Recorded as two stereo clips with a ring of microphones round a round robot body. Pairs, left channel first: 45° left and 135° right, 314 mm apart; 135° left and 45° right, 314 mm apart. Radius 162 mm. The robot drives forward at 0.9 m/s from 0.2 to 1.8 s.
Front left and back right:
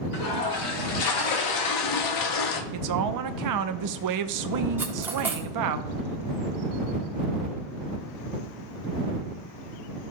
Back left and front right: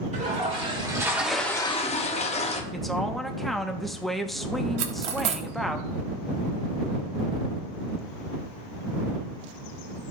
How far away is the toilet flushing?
About 2 m.